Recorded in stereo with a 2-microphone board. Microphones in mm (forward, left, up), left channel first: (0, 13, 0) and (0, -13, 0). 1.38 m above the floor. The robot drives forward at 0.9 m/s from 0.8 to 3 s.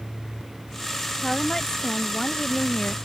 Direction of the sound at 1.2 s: 25° left (ahead or behind).